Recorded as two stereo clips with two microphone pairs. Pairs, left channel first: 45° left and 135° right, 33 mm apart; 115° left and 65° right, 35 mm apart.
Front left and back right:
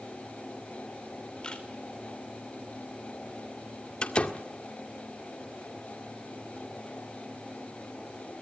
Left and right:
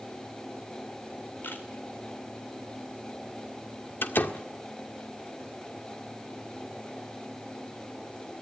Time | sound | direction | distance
1.4 | a camera shutter | 110° left | 4 m
4.0 | a door slam | 100° left | 1.7 m